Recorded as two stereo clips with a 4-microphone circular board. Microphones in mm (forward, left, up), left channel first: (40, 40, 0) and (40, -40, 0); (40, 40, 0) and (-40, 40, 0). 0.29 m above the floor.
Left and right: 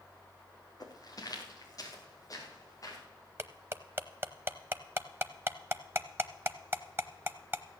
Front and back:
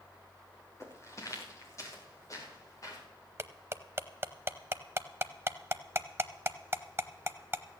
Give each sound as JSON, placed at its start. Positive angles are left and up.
{"t": 0.8, "sound": "footsteps", "azimuth_deg": 55, "distance_m": 3.5}
{"t": 3.4, "sound": "cutlery clinking", "azimuth_deg": -135, "distance_m": 0.7}